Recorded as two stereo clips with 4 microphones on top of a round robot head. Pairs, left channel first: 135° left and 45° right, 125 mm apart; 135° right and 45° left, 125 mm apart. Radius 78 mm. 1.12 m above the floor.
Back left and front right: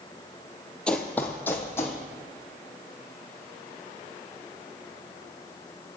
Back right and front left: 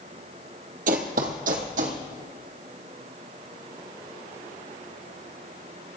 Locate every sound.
0.9 s running footsteps: 55° left, 1.7 m; by 2.0 s 65° left, 3 m